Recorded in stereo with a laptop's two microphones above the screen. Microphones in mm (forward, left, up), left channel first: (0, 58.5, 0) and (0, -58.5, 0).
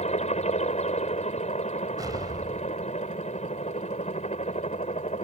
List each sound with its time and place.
0.0 s a helicopter: 70° left (ahead or behind); by 5.2 s 75° left (ahead or behind)
2.0 s an explosion: 35° right (ahead or behind)